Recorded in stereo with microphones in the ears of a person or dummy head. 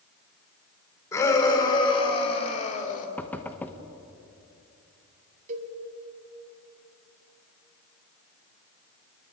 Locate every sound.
1.1 s a shout: 20° left (ahead or behind), 4.5 m; by 3.1 s 45° left (ahead or behind), 3.5 m
3.2 s knocking: 10° left (ahead or behind), 1.1 m
5.5 s a cowbell: 45° right (ahead or behind), 2 m